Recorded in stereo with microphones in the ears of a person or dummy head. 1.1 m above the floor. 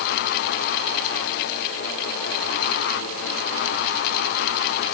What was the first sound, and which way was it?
Only background noise.